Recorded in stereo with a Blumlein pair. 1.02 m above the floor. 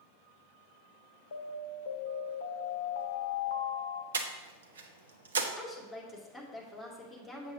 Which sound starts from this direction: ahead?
A woman speaking, at 5.6 s.